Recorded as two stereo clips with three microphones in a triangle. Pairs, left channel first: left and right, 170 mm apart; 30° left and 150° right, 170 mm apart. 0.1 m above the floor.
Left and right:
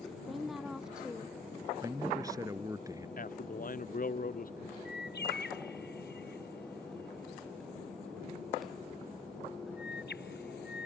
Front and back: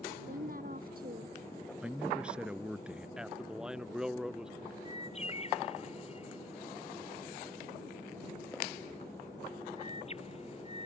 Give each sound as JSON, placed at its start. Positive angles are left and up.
{"t": 0.3, "sound": "a woman speaking", "azimuth_deg": 180}
{"t": 1.8, "sound": "a man speaking", "azimuth_deg": -75}
{"t": 3.2, "sound": "a man speaking", "azimuth_deg": 125}
{"t": 4.8, "sound": "a bird", "azimuth_deg": 80}